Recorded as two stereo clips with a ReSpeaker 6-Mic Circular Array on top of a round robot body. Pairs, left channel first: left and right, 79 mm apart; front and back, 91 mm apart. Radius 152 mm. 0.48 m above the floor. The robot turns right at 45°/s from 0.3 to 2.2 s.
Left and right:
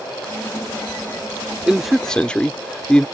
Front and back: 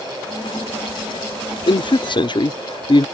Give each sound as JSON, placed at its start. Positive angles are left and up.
{"t": 1.7, "sound": "a man speaking", "azimuth_deg": -10}